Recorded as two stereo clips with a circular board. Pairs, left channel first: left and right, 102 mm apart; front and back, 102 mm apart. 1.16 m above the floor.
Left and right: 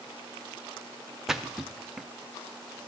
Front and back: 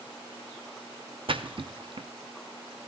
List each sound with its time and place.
1.3 s a splash: 175° right, 0.7 m